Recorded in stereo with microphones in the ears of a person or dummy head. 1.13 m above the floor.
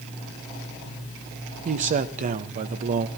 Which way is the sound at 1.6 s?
45° right (ahead or behind).